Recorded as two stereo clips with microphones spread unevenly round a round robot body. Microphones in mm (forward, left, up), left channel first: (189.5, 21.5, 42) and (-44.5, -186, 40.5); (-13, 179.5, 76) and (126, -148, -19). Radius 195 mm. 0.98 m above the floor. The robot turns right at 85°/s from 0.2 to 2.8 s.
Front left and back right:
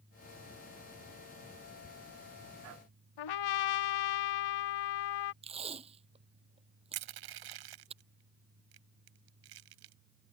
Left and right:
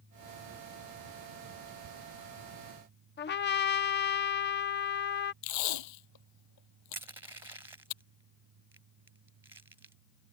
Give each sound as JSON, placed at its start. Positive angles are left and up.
{"t": 3.2, "sound": "a trumpet", "azimuth_deg": 50}
{"t": 5.4, "sound": "tape being pulled", "azimuth_deg": 145}
{"t": 6.9, "sound": "crushing", "azimuth_deg": -150}